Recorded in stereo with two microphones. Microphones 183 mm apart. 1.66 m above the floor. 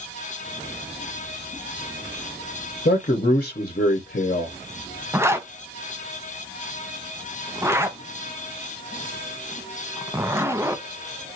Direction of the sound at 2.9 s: 45° left (ahead or behind).